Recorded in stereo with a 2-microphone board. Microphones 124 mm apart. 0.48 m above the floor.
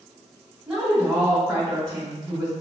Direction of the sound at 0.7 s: 5° right (ahead or behind).